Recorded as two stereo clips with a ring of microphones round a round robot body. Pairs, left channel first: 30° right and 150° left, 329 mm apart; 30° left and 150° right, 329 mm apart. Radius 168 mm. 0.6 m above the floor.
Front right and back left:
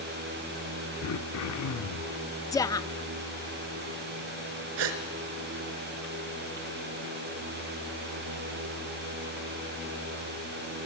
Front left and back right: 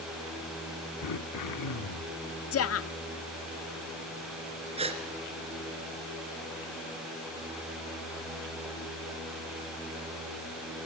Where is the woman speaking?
45° left, 0.7 m.